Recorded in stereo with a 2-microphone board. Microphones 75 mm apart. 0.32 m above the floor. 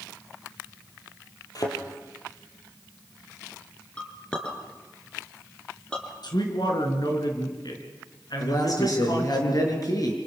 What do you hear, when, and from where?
1.6 s a thud: 50° left (ahead or behind), 4.5 m
4.0 s a clink: 10° left (ahead or behind), 3.5 m
6.2 s a man speaking: 65° left (ahead or behind), 4.5 m
8.4 s a man speaking: 50° left (ahead or behind), 5.5 m